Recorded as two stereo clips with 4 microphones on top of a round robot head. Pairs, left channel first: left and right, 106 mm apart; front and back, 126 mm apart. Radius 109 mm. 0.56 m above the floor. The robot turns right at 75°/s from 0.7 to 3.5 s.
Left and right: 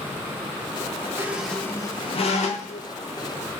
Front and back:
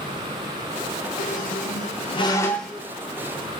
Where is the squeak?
20° right, 0.5 m; by 2.9 s 110° left, 0.5 m.